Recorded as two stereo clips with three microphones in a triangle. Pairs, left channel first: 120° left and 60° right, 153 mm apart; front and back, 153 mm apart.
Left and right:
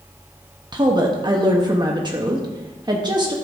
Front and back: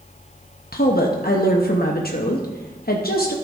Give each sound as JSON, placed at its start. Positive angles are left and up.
{"t": 0.7, "sound": "a woman speaking", "azimuth_deg": 0, "distance_m": 0.8}